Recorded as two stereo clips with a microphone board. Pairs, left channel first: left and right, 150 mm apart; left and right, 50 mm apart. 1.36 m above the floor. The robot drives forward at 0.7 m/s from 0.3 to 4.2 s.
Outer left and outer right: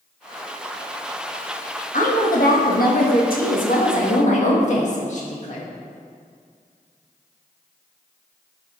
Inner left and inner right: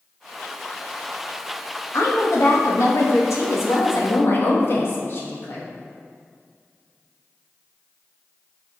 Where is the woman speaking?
65° left (ahead or behind), 1.5 m; by 5.7 s 55° left (ahead or behind), 1.7 m.